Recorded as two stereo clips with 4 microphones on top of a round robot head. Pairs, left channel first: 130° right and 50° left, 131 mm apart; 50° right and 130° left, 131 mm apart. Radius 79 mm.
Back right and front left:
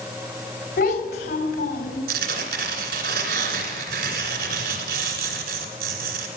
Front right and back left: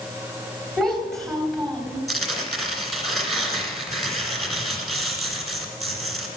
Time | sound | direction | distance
0.8 | a child speaking | 135° right | 3 m
2.1 | tearing paper | 40° left | 2.5 m